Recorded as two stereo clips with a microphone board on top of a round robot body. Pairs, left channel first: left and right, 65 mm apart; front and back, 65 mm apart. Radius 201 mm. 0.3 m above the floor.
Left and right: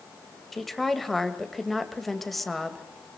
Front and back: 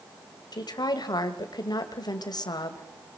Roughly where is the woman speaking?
Ahead.